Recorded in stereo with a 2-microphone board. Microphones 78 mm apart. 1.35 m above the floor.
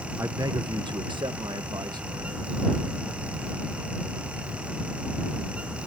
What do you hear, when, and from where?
0.2 s a man speaking: 35° right (ahead or behind); by 2.5 s 60° right (ahead or behind)